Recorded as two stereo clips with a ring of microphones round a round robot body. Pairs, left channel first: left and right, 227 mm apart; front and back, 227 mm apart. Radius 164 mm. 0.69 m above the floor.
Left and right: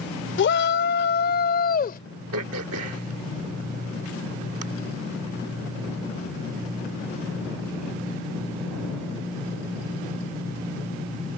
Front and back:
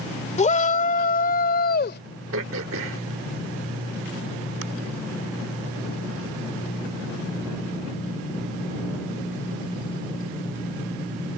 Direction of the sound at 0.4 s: 60° left.